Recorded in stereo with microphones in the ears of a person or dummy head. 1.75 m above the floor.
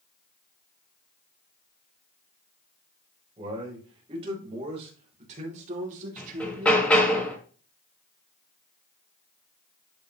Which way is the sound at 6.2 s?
10° left (ahead or behind).